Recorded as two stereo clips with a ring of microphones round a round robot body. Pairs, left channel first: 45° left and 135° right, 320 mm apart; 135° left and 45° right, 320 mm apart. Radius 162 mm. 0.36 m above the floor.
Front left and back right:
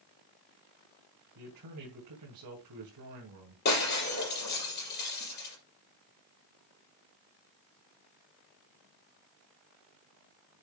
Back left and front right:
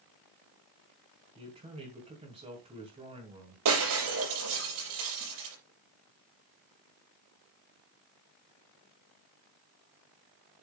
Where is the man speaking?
115° right, 3 m.